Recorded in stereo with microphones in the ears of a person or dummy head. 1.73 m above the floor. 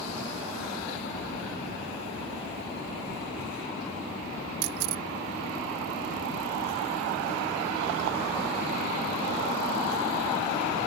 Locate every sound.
4.6 s a camera shutter: 50° right (ahead or behind)